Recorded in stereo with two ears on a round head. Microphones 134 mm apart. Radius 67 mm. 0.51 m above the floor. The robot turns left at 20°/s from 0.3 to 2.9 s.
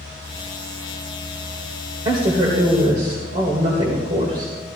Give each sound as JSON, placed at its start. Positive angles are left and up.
{"t": 2.0, "sound": "a woman speaking", "side_deg": -30, "distance_m": 1.9}